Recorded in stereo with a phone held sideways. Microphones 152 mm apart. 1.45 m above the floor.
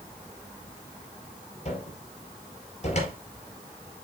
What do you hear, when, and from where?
1.6 s a cupboard door: 45° left (ahead or behind), 5 m